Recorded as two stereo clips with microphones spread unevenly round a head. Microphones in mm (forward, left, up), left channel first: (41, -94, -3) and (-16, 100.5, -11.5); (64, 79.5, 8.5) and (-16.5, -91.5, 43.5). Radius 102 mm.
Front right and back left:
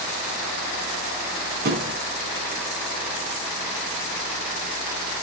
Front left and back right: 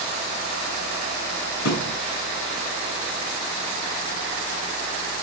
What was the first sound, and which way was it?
A thud, 65° left.